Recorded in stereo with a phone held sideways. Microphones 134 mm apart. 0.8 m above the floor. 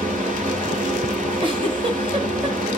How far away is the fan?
About 1.4 m.